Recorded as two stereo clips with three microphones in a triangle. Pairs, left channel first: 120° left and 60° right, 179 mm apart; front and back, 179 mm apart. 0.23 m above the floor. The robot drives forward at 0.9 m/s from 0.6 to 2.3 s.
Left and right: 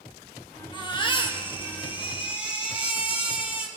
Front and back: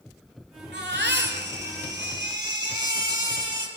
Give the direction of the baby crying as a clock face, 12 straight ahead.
6 o'clock.